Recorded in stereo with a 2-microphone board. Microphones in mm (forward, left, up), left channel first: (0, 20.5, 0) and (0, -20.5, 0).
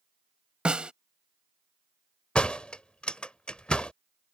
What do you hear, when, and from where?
0.7 s a snare drum: 25° right (ahead or behind)
2.4 s a door slam: 30° left (ahead or behind)